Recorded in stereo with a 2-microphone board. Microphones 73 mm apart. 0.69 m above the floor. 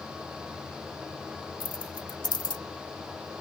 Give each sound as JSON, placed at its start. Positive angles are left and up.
{"t": 1.6, "sound": "keys jangling", "side_deg": 80}